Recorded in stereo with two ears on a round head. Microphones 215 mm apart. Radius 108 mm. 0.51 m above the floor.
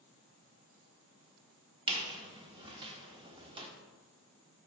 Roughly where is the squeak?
Right.